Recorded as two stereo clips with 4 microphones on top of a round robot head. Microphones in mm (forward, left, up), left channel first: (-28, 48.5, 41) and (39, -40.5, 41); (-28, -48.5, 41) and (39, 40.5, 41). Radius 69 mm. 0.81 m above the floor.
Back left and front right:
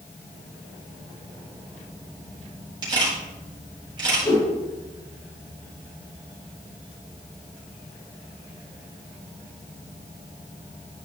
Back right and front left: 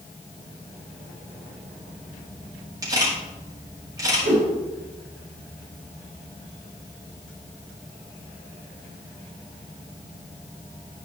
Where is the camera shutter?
5° right, 3.5 m.